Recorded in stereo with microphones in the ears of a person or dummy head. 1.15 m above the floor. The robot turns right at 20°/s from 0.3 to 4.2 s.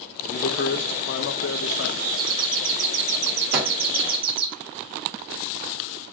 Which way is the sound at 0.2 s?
55° left.